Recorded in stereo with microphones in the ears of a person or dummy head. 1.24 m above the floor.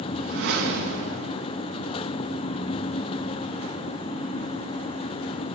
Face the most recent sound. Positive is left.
turn(degrees=-60)  # may be behind; listen again after turning